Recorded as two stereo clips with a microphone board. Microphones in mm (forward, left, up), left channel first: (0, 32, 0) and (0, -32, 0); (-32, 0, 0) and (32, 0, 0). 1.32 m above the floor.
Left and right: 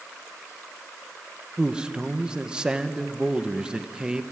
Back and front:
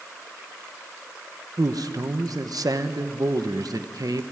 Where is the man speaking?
15° right, 1.3 m.